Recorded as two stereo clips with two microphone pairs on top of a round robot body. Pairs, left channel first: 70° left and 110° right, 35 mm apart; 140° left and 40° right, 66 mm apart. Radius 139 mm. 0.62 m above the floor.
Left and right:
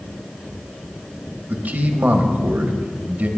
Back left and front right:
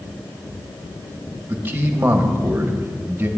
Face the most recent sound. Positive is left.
turn(degrees=-95)